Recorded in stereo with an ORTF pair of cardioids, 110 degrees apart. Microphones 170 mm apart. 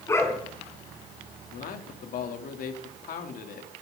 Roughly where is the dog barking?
Ahead.